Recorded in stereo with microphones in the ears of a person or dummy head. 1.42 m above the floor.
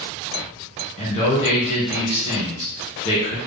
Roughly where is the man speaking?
Left.